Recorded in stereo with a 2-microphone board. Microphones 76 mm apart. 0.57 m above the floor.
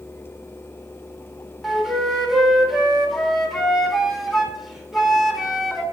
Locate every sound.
1.6 s a flute: 5° right (ahead or behind), 1.3 m